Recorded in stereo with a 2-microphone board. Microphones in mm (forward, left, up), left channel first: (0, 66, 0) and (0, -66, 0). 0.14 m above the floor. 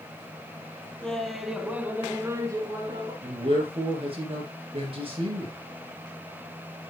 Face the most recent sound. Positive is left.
turn(degrees=-45)  # may be behind; listen again after turning